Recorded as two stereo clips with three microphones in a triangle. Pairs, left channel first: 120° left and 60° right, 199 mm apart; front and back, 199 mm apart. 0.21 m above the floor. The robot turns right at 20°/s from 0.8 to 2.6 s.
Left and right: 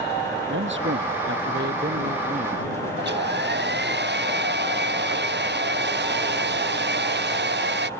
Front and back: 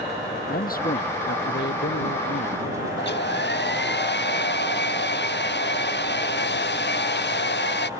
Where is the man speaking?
45° right; by 2.9 s 5° right.